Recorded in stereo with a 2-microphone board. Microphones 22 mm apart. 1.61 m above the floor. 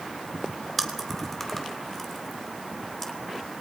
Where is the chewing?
5° left (ahead or behind), 2.5 m.